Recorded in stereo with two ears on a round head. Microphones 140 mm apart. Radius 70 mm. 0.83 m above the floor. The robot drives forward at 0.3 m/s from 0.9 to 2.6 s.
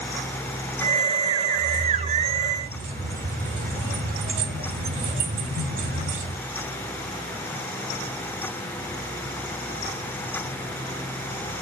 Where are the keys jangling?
75° right (ahead or behind), 2.5 m; by 6.4 s 65° right (ahead or behind), 2.5 m.